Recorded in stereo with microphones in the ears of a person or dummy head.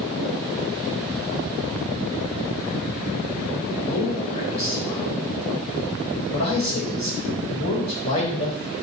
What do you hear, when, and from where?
3.9 s a man speaking: 35° left (ahead or behind), 1.4 m